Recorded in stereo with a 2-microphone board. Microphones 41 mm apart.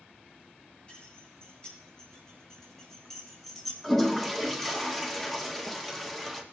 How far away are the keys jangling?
About 5 m.